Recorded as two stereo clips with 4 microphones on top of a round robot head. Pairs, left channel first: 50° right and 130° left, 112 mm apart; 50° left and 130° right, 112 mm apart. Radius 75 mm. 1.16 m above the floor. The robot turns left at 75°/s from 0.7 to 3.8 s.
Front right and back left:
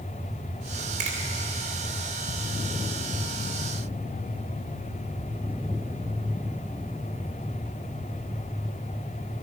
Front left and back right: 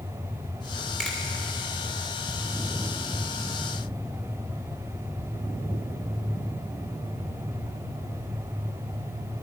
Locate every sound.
1.0 s a finger snap: 135° left, 2.5 m; by 1.2 s 125° left, 2.5 m